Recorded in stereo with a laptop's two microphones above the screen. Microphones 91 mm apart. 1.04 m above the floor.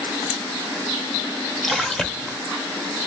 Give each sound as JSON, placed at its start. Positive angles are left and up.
{"t": 1.6, "sound": "a splash", "side_deg": 0, "distance_m": 0.7}